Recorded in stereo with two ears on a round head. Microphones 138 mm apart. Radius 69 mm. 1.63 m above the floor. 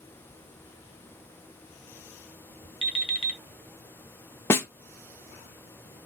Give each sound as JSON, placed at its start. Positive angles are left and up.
{"t": 2.8, "sound": "an alarm clock", "side_deg": 40, "distance_m": 0.9}
{"t": 4.5, "sound": "a snare drum", "side_deg": 15, "distance_m": 0.6}